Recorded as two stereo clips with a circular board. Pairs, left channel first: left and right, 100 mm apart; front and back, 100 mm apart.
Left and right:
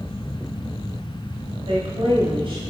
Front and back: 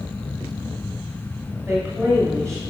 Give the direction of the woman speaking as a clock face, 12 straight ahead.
3 o'clock.